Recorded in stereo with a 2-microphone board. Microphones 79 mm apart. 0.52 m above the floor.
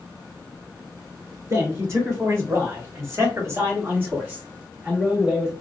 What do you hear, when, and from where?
1.5 s a man speaking: 40° right (ahead or behind), 2.0 m; by 5.5 s 5° right (ahead or behind), 1.4 m